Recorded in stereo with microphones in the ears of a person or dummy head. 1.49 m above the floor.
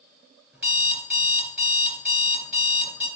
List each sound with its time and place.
0.5 s an alarm clock: 10° right (ahead or behind), 3.5 m